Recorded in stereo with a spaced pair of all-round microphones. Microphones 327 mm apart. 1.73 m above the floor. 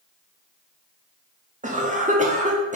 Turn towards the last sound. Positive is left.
turn(degrees=-20)  # may be behind; listen again after turning